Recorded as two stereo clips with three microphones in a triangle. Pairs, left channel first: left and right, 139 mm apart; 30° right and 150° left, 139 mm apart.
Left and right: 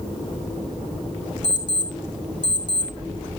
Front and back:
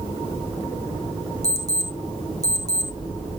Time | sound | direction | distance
1.4 | an alarm clock | 145° right | 2.5 m